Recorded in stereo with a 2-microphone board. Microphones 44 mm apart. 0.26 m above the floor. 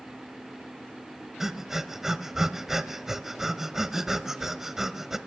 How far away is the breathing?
About 0.6 m.